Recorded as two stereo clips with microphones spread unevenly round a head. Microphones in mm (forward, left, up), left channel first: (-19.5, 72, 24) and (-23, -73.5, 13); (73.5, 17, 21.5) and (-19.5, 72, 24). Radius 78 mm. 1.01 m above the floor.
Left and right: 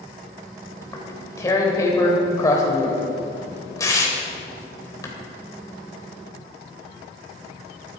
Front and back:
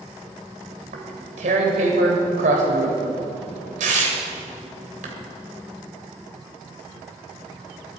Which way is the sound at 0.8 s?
155° left.